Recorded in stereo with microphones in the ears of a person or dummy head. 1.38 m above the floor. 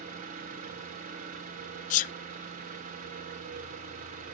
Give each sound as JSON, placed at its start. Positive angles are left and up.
{"t": 0.0, "sound": "an engine running", "side_deg": -45, "distance_m": 2.5}
{"t": 1.9, "sound": "a sneeze", "side_deg": 45, "distance_m": 0.6}